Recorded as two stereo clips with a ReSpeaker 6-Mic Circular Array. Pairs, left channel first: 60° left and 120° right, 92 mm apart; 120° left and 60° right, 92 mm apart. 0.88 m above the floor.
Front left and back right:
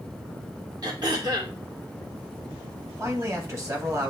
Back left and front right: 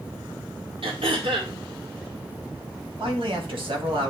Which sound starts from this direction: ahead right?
A man speaking, at 3.0 s.